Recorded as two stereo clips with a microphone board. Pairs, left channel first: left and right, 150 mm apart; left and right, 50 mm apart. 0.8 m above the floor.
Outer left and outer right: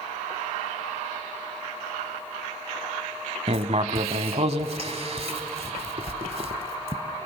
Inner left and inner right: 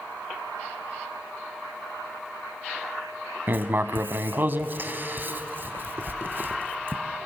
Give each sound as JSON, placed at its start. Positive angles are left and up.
{"t": 3.5, "sound": "writing", "side_deg": -50, "distance_m": 1.0}